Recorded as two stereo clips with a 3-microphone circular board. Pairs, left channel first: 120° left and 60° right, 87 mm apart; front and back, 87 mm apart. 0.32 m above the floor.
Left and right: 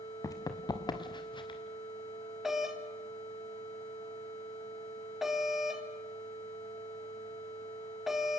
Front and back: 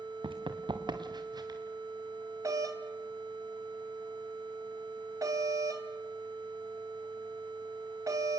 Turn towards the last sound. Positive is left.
turn(degrees=-145)